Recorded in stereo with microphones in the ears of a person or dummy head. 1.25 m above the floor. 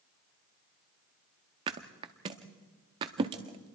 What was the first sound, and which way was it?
A thud, 25° right (ahead or behind).